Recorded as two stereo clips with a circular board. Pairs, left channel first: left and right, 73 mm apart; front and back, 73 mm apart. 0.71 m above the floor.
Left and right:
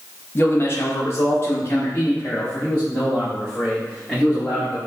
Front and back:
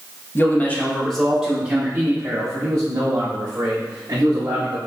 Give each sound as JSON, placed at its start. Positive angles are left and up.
{"t": 0.3, "sound": "a man speaking", "azimuth_deg": 45, "distance_m": 1.0}